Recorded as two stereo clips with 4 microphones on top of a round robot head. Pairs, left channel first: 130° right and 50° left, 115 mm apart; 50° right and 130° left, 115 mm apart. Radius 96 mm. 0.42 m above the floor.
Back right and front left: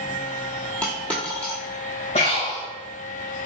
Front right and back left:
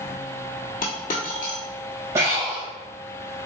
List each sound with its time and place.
0.8 s a dropped coin: 50° right, 1.1 m
2.1 s breathing: 165° right, 2.0 m